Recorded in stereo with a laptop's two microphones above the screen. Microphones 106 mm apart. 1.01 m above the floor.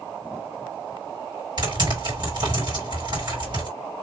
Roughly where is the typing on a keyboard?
Right.